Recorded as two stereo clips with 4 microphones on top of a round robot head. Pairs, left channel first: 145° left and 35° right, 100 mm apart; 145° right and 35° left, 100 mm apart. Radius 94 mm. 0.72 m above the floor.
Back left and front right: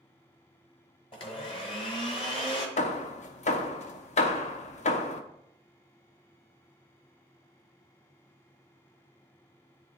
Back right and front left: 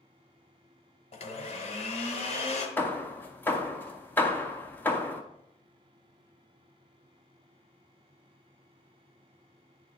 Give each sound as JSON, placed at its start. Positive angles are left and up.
{"t": 1.1, "sound": "a blender", "azimuth_deg": -175, "distance_m": 1.2}
{"t": 2.8, "sound": "hammering", "azimuth_deg": 145, "distance_m": 0.7}